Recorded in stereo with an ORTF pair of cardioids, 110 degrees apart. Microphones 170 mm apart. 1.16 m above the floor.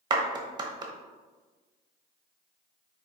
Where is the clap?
25° right, 0.8 m.